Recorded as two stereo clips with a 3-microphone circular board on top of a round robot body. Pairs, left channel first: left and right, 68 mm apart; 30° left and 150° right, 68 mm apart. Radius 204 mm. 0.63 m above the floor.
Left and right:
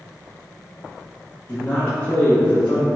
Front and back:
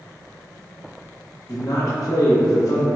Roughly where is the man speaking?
Ahead left.